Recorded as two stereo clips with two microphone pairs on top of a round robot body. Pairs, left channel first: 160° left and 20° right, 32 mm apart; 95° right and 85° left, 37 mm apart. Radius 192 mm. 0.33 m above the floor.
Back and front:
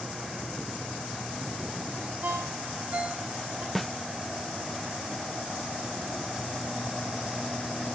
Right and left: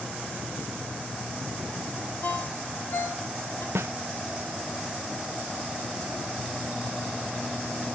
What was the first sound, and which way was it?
A ringtone, 60° right.